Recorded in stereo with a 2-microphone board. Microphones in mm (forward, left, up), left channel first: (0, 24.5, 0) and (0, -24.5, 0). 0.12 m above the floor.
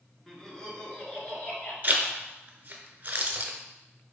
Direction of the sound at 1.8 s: 40° right (ahead or behind).